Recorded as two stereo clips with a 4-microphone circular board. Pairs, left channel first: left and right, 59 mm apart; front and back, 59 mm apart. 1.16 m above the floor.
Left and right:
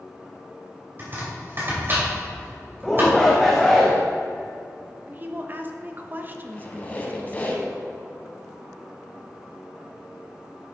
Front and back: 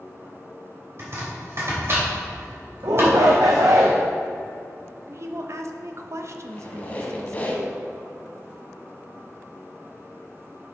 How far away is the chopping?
About 2.5 m.